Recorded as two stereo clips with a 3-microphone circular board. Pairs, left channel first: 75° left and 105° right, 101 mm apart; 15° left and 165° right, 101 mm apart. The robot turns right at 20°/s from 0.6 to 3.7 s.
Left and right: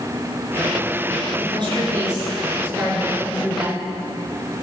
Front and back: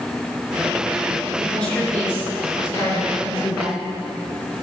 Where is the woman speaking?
70° right, 6 m; by 3.9 s 25° right, 6 m.